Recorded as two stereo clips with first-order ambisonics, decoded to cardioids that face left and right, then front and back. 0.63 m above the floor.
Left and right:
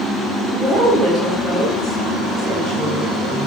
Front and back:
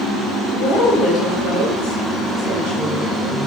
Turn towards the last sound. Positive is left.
turn(degrees=15)